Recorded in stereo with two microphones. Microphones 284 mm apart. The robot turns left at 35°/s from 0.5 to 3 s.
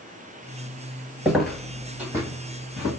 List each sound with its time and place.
1.2 s footsteps: 5° right (ahead or behind), 0.7 m; by 2.9 s 35° right (ahead or behind), 3 m